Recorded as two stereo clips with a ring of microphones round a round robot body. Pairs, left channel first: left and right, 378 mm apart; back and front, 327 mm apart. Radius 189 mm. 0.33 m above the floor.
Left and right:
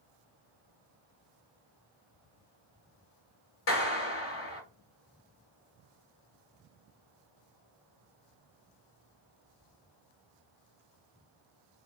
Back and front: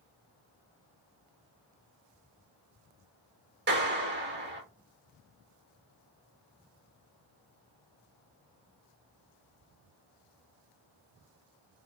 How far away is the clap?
About 1.2 m.